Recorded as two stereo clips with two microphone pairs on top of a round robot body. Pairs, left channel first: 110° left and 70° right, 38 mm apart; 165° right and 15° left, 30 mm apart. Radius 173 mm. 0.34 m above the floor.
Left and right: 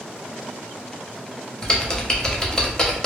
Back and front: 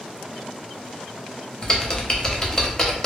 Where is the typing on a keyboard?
165° left, 0.9 m.